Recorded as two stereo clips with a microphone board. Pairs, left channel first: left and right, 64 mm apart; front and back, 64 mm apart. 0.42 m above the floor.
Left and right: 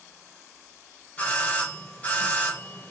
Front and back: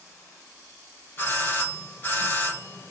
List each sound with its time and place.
1.2 s a doorbell: 30° left, 2.5 m